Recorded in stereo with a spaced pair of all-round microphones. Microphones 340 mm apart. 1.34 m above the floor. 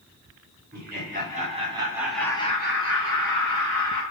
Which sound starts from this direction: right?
Laughter, at 0.7 s.